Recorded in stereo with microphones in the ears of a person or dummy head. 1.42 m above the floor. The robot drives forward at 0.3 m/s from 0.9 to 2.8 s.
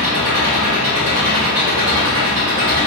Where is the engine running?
45° right (ahead or behind), 1.5 m; by 2.9 s 50° right (ahead or behind), 1.4 m.